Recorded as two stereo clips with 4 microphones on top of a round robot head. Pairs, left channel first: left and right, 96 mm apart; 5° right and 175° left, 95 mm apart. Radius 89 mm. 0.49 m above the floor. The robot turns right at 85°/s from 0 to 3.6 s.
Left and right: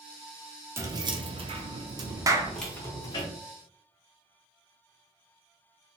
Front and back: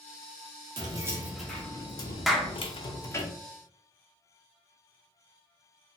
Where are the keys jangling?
150° right, 0.6 m; by 3.3 s 60° left, 0.6 m.